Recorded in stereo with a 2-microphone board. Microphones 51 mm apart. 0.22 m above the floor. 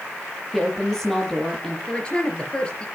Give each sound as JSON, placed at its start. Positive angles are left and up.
{"t": 0.5, "sound": "a woman speaking", "side_deg": 10, "distance_m": 6.5}
{"t": 1.9, "sound": "a woman speaking", "side_deg": 20, "distance_m": 4.0}